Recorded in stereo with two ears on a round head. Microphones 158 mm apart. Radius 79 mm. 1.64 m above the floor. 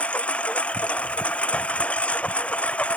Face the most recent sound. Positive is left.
turn(degrees=10)  # may be behind; listen again after turning